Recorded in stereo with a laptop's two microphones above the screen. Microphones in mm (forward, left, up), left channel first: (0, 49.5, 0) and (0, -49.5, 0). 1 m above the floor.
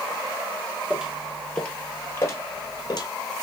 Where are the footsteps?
10° right (ahead or behind), 1.0 m; by 3.1 s 45° left (ahead or behind), 1.4 m.